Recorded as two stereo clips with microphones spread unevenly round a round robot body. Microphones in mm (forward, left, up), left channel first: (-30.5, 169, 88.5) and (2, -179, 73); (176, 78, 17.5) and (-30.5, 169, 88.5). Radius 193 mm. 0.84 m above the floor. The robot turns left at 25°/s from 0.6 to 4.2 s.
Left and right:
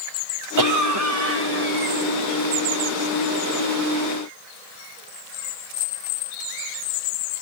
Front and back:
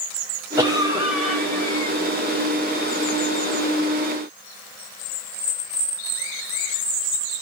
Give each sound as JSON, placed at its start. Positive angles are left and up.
{"t": 0.6, "sound": "a cough", "azimuth_deg": -120, "distance_m": 3.0}